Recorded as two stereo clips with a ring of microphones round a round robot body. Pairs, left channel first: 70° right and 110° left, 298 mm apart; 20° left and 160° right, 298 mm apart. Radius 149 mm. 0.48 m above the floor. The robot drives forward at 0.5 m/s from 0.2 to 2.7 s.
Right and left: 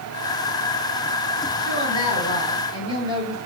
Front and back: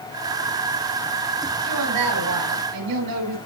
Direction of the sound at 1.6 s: 140° right.